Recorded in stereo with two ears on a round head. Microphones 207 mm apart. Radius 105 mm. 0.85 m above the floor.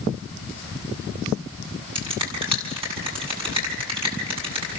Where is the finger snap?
25° right (ahead or behind), 8 m.